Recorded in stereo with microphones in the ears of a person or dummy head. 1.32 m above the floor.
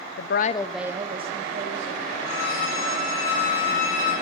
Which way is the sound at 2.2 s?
60° left (ahead or behind).